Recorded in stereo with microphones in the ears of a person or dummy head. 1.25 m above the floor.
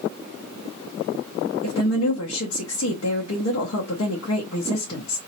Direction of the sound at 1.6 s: 75° left (ahead or behind).